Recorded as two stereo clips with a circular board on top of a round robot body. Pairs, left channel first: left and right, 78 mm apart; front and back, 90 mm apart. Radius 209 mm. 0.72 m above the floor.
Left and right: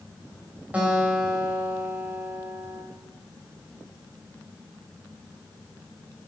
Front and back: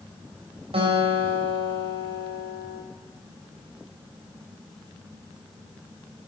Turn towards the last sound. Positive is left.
turn(degrees=-165)